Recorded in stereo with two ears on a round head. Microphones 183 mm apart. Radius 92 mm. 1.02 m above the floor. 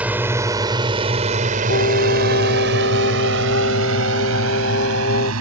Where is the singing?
60° left (ahead or behind).